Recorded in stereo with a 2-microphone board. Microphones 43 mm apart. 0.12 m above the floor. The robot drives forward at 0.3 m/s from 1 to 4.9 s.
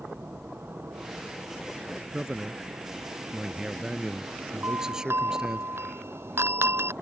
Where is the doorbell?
70° right (ahead or behind).